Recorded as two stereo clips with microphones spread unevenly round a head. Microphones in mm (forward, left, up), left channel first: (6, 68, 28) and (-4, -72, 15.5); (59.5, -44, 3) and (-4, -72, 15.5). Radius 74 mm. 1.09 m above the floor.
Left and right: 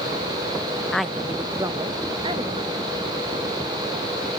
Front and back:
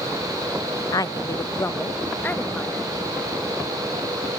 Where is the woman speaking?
Straight ahead, 0.6 m; by 2.9 s 45° right, 1.5 m.